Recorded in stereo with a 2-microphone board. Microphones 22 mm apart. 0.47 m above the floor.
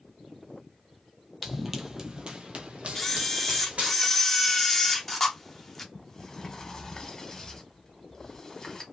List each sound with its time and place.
1.4 s running footsteps: 5° right (ahead or behind), 0.9 m; by 4.0 s 75° right (ahead or behind), 1.6 m
3.0 s a camera shutter: 10° left (ahead or behind), 0.7 m
5.9 s a sliding door: 20° left (ahead or behind), 1.0 m